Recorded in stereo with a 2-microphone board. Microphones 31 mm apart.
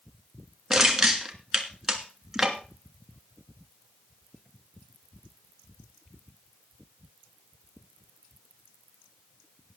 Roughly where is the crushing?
Centre.